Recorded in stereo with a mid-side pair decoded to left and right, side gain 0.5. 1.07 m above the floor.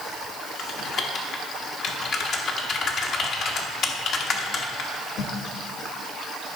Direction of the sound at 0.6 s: 55° left.